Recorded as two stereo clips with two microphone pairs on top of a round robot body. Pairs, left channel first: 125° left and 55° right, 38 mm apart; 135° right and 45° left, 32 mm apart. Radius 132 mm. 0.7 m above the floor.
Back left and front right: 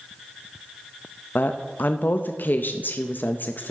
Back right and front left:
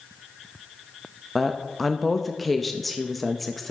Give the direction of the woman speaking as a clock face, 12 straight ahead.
8 o'clock.